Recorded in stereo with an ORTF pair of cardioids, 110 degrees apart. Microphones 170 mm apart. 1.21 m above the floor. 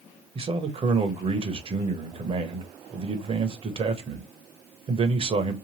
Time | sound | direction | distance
0.3 | a man speaking | 35° right | 0.8 m